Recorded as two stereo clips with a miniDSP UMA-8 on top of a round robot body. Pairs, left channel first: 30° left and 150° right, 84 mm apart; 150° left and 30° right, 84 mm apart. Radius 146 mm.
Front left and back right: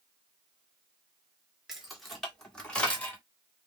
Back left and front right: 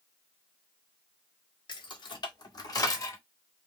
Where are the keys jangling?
125° left, 2.0 m; by 3.2 s 100° left, 1.5 m.